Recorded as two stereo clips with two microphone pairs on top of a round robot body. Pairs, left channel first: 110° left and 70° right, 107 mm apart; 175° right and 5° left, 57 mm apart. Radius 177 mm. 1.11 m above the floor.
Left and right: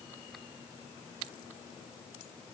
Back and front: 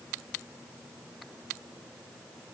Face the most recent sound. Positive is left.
No sound to turn to.